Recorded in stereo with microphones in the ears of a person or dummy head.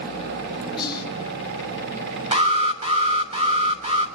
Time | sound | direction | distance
0.8 | whispering | 20° left (ahead or behind) | 4 m
2.3 | an alarm | 35° right (ahead or behind) | 3 m